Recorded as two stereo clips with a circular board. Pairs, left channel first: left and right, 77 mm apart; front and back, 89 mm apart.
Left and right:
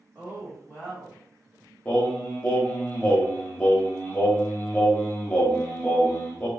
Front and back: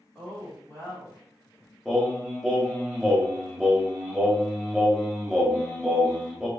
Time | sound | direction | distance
0.1 | a woman speaking | 75° right | 1.6 m
1.9 | singing | 95° left | 0.7 m